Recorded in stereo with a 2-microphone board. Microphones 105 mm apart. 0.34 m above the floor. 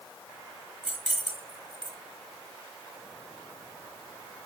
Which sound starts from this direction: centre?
Keys jangling, at 0.8 s.